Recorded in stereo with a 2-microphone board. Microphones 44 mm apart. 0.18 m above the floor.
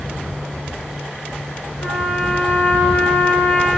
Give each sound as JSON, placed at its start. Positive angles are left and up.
{"t": 1.8, "sound": "a trumpet", "side_deg": 45, "distance_m": 1.2}